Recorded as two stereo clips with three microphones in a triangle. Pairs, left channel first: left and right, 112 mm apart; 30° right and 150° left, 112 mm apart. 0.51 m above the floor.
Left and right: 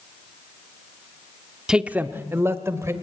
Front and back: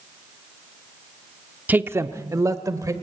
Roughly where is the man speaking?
Behind.